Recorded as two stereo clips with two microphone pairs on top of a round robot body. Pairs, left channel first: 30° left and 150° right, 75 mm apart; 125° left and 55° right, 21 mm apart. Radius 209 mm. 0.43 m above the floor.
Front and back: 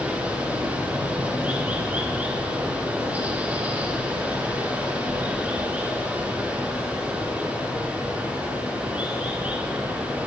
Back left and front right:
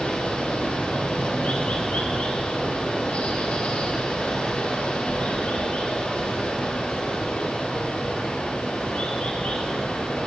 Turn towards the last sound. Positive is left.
turn(degrees=140)